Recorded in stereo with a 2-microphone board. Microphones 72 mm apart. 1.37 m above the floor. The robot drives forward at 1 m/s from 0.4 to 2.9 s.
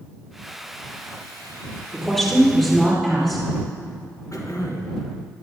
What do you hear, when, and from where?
1.9 s a woman speaking: 10° left (ahead or behind), 3 m
4.3 s throat clearing: 50° left (ahead or behind), 1.3 m